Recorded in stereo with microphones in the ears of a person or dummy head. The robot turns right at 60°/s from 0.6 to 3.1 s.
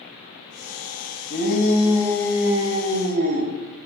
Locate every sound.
1.3 s a shout: 120° left, 1.4 m; by 3.5 s 130° right, 1.4 m